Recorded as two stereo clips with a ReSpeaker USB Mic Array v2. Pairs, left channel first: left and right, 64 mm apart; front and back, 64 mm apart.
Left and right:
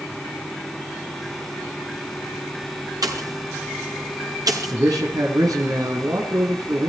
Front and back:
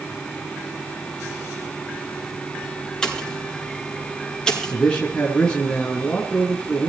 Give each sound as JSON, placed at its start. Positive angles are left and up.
{"t": 3.0, "sound": "a pop", "azimuth_deg": -80, "distance_m": 6.5}
{"t": 4.7, "sound": "a man speaking", "azimuth_deg": -75, "distance_m": 4.0}